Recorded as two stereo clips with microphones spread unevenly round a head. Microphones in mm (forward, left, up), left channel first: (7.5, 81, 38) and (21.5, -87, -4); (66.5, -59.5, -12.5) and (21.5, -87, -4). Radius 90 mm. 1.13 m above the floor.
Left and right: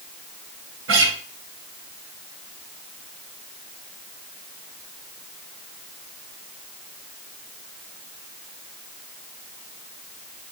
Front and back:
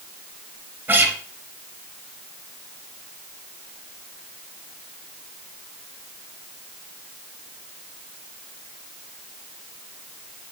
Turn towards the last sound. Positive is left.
turn(degrees=-105)